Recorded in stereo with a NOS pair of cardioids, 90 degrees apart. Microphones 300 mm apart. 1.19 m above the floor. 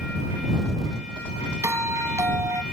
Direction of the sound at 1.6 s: 10° right.